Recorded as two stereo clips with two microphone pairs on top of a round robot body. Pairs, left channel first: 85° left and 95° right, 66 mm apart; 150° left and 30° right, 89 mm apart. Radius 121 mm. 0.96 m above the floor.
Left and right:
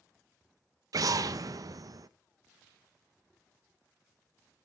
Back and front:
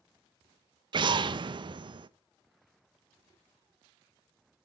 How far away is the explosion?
About 0.5 m.